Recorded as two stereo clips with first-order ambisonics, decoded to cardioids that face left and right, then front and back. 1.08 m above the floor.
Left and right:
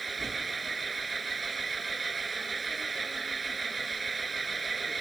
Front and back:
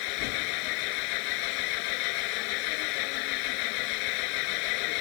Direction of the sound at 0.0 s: 15° right.